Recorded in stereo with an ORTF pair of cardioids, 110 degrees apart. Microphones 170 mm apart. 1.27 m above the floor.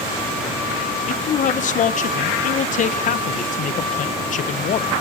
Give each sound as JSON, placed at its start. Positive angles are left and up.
{"t": 1.1, "sound": "a man speaking", "azimuth_deg": 45, "distance_m": 0.7}